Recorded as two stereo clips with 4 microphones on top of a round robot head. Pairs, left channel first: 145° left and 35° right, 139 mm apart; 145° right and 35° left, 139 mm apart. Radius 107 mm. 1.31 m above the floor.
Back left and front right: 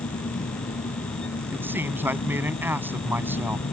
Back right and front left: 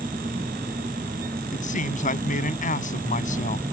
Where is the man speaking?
110° right.